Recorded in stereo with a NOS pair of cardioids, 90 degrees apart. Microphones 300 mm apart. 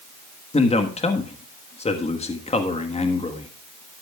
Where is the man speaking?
20° left, 1.4 m.